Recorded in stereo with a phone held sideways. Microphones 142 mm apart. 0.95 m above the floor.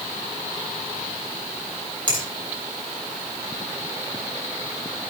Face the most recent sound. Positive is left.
turn(degrees=-35)  # may be behind; listen again after turning